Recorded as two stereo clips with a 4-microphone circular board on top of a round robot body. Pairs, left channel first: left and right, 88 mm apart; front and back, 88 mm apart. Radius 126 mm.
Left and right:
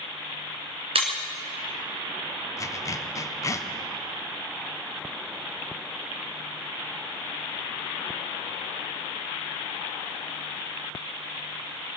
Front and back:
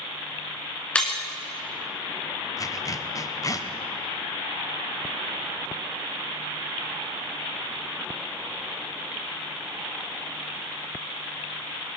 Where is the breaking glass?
75° right, 1.8 m.